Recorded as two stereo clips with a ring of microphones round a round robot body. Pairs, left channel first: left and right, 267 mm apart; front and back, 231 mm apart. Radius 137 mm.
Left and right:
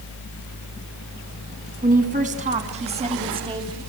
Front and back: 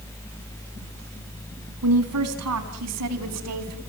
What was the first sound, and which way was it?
A woman speaking, 150° right.